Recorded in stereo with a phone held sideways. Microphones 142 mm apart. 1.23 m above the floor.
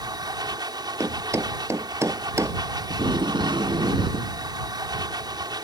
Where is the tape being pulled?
30° right (ahead or behind).